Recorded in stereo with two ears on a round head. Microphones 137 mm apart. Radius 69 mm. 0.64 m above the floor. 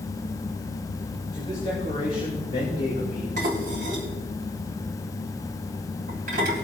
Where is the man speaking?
30° left (ahead or behind), 4 m; by 3.3 s 55° left (ahead or behind), 3 m.